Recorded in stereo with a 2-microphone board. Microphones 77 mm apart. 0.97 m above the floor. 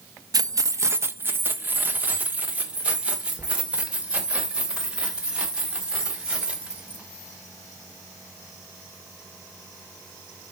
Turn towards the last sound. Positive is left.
turn(degrees=-10)  # may be behind; listen again after turning